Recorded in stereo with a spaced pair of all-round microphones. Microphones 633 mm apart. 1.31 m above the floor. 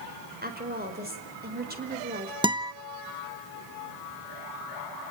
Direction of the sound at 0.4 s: 15° right (ahead or behind).